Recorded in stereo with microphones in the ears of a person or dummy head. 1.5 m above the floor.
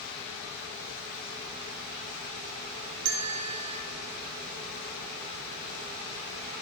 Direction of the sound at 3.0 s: 50° right (ahead or behind).